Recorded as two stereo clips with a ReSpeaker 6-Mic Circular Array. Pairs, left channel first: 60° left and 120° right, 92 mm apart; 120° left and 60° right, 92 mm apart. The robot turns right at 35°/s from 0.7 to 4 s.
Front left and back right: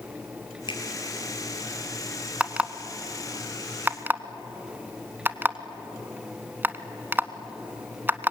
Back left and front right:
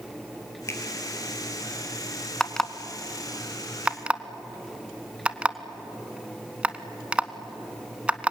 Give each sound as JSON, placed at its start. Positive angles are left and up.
{"t": 0.7, "sound": "a finger snap", "azimuth_deg": 65, "distance_m": 2.5}
{"t": 2.4, "sound": "an alarm clock", "azimuth_deg": -170, "distance_m": 0.9}